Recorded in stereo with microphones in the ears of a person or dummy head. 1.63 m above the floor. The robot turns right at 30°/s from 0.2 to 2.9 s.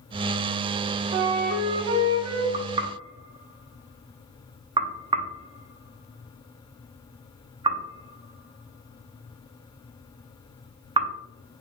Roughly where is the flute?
Behind right.